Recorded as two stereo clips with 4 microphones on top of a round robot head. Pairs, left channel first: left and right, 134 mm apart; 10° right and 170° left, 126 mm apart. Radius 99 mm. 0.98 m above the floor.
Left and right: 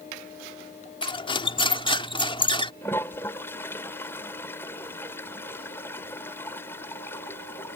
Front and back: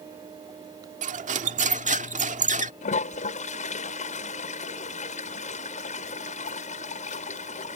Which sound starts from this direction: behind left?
Cutlery clinking, at 1.0 s.